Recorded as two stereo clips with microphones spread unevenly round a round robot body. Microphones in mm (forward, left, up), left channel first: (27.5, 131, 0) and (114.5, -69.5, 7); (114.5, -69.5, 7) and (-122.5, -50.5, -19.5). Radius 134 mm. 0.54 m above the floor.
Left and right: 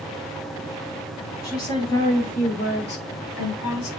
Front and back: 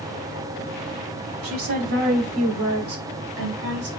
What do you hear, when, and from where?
1.4 s a woman speaking: 170° right, 4 m; by 3.9 s 130° left, 3 m